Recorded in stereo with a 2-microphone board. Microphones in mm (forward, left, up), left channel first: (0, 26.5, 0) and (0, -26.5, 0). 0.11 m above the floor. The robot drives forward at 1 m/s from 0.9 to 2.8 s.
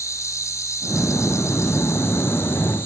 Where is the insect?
75° left (ahead or behind), 2 m; by 2.9 s 45° left (ahead or behind), 3 m.